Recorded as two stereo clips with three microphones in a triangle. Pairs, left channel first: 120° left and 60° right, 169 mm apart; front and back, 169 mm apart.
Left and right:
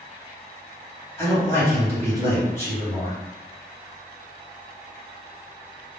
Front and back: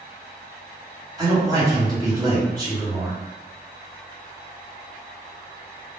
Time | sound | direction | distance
1.2 | a man speaking | 165° left | 1.4 m